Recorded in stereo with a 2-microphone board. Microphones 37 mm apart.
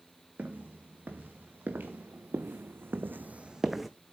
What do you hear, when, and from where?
0.4 s footsteps: 55° right (ahead or behind), 3 m; by 3.9 s centre (ahead or behind), 0.8 m